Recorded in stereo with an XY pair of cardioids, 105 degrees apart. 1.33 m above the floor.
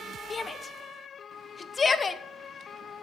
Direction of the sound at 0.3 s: 35° left.